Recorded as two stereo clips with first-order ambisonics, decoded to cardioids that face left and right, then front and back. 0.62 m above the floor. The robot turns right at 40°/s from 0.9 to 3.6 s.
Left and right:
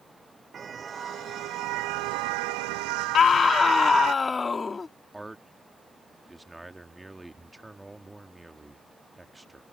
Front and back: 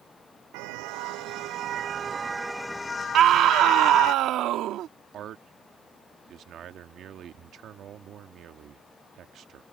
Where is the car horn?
160° right; by 4.1 s 50° right.